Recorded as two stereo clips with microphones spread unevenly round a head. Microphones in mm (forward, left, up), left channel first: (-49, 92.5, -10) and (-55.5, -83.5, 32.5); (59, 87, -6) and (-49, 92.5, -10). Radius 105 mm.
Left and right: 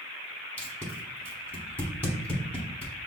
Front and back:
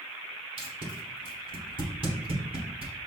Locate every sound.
0.6 s tape being pulled: straight behind, 1.0 m